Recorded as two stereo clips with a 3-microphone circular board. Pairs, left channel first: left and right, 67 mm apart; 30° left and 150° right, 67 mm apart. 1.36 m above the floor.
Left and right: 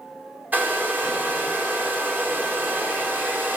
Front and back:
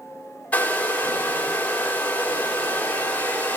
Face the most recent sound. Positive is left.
turn(degrees=-35)